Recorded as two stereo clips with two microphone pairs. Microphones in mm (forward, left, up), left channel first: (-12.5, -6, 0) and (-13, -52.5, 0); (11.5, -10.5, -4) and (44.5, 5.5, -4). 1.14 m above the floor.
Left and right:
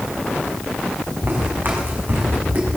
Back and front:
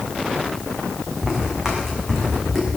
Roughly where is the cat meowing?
No cat meowing in this recording.